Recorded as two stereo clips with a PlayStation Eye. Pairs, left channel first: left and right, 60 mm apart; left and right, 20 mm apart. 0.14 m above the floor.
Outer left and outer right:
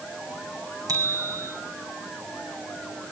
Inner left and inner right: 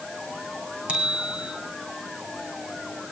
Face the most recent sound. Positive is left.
turn(degrees=-80)